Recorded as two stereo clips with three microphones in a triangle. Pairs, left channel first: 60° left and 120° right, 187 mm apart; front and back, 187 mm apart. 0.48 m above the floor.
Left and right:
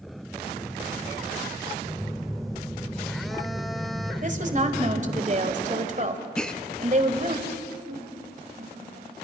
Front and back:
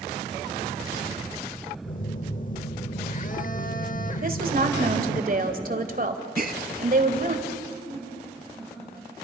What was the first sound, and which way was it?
A phone buzzing, 30° right.